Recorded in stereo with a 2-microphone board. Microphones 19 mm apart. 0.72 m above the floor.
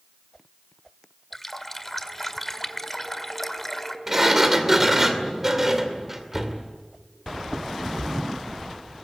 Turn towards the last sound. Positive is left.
turn(degrees=-15)  # may be behind; listen again after turning